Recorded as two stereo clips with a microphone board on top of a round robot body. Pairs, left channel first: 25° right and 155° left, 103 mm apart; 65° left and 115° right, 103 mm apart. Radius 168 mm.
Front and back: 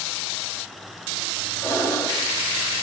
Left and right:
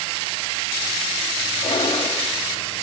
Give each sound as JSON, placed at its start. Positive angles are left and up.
{"t": 1.6, "sound": "breathing", "azimuth_deg": 35, "distance_m": 3.5}